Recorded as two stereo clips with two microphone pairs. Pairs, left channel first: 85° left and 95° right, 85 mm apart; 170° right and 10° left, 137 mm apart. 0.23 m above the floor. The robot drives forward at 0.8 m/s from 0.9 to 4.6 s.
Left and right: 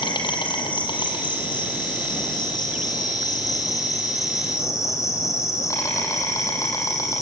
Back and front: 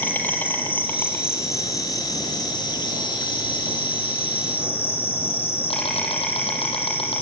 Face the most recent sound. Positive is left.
turn(degrees=140)